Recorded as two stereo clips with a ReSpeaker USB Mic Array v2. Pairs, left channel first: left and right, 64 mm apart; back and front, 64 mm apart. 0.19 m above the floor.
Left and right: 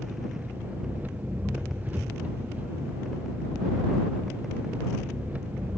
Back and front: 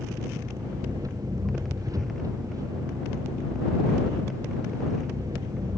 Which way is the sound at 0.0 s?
25° right.